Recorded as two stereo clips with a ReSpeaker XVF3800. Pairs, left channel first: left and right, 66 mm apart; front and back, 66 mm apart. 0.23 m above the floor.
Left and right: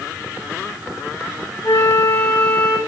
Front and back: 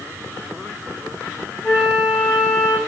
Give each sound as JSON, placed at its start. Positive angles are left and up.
{"t": 1.6, "sound": "a flute", "azimuth_deg": 100, "distance_m": 8.0}